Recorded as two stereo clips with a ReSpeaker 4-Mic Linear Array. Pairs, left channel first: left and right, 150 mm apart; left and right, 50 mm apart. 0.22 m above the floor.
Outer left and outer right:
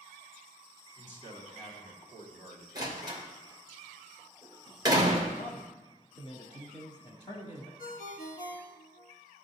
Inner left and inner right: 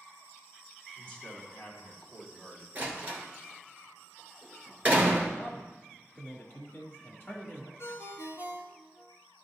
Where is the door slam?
30° right (ahead or behind), 2 m.